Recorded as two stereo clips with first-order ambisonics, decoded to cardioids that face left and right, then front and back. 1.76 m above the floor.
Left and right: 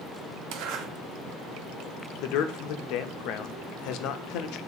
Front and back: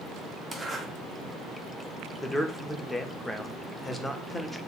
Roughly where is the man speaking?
Left.